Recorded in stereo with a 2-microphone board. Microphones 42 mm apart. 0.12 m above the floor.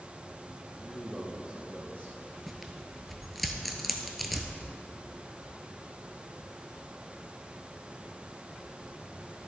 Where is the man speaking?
15° left (ahead or behind), 1.3 m; by 2.2 s 50° right (ahead or behind), 1.8 m.